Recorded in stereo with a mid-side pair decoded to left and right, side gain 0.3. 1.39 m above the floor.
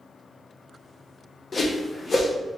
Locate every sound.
1.5 s a whoosh: 45° left, 1.0 m